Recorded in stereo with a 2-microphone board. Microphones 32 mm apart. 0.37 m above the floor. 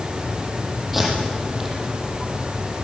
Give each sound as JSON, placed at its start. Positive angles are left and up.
{"t": 0.9, "sound": "tape being pulled", "side_deg": -5, "distance_m": 7.5}